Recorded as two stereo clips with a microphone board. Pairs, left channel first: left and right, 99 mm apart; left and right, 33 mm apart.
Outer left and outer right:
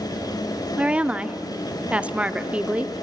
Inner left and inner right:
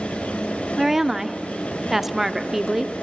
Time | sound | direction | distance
0.8 | a woman speaking | 10° right (ahead or behind) | 0.7 m